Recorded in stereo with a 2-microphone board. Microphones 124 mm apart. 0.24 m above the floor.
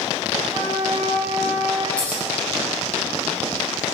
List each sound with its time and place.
0.4 s a flute: 25° right (ahead or behind), 4 m
2.0 s scissors: 10° left (ahead or behind), 6 m